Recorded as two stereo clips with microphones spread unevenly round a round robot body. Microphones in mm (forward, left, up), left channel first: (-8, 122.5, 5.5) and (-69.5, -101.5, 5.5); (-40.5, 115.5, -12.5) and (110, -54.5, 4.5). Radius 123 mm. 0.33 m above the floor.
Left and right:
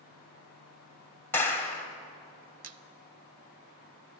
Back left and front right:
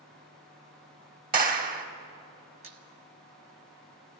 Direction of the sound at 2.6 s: 115° right.